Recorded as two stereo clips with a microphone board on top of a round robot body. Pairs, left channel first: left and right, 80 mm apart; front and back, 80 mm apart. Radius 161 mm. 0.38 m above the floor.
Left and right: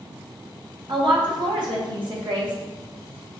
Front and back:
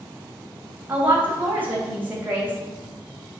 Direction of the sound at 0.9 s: 110° right.